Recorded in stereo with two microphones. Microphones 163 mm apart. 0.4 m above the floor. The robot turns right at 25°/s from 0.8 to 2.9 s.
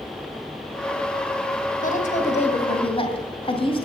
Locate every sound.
1.8 s a woman speaking: 55° left (ahead or behind), 2.5 m; by 3.9 s 35° left (ahead or behind), 2.5 m